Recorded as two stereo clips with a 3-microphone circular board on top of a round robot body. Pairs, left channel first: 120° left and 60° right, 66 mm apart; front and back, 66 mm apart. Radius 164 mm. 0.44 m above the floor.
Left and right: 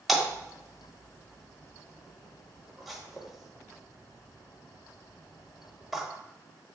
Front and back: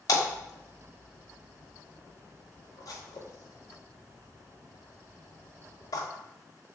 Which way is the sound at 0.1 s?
30° left.